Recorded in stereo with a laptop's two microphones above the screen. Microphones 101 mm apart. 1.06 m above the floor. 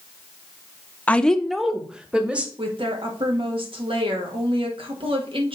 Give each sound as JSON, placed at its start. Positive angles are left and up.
{"t": 1.1, "sound": "a woman speaking", "side_deg": 15, "distance_m": 0.7}
{"t": 2.6, "sound": "a woman speaking", "side_deg": -65, "distance_m": 2.0}